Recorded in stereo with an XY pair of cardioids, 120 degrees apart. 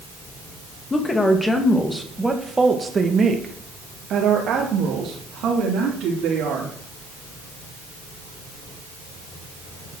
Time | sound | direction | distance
0.9 | a woman speaking | 25° left | 2.5 m